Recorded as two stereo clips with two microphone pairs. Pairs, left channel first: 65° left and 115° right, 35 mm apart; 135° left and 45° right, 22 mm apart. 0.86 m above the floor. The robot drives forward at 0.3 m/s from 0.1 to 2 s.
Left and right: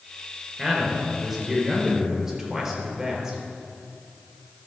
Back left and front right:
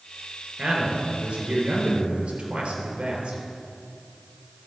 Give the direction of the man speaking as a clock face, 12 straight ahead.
1 o'clock.